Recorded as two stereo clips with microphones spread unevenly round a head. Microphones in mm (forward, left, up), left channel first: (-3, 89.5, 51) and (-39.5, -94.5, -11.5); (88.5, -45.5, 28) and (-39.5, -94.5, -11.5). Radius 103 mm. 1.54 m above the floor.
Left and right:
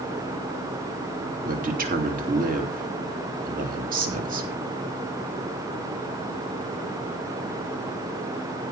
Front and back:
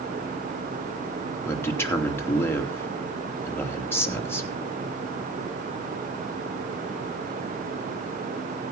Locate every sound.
1.4 s a man speaking: 50° right, 3 m